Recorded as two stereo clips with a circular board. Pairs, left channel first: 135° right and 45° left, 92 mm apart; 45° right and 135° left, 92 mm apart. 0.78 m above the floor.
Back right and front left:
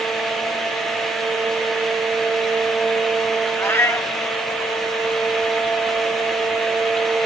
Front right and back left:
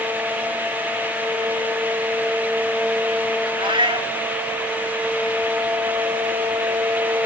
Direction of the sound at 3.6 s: 160° left.